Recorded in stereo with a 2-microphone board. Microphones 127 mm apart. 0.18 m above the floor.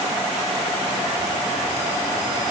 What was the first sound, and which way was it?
Only background noise.